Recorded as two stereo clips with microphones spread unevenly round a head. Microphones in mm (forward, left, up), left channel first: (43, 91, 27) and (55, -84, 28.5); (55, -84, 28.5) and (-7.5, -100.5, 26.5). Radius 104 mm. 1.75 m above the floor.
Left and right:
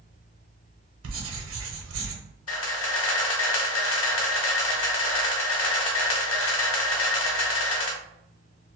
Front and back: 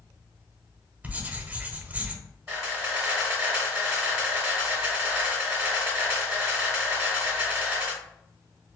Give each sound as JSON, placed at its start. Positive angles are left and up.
{"t": 1.0, "sound": "writing", "azimuth_deg": -100, "distance_m": 0.8}
{"t": 2.5, "sound": "a camera shutter", "azimuth_deg": 115, "distance_m": 0.7}